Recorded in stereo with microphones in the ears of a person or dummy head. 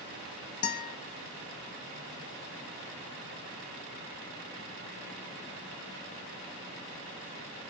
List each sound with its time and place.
0.6 s a guitar: 45° left (ahead or behind), 1.4 m